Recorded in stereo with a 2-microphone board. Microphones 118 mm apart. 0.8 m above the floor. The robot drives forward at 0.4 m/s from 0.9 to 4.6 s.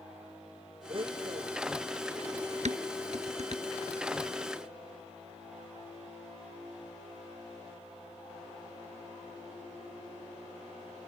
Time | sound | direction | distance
0.9 | a blender | 45° right (ahead or behind) | ?
2.6 | dishes clattering | 65° right (ahead or behind) | ?